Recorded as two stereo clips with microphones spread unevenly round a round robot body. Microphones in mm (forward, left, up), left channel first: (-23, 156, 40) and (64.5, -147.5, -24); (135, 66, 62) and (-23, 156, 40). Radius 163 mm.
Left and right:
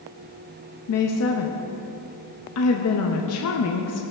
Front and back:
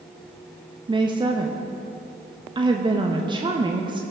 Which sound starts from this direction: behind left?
A woman speaking, at 0.9 s.